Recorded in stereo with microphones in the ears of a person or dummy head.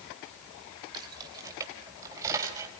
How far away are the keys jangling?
About 3 m.